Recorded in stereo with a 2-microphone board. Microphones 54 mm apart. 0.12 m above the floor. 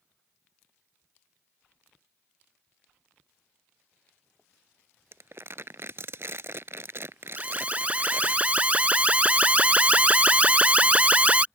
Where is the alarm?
25° right (ahead or behind).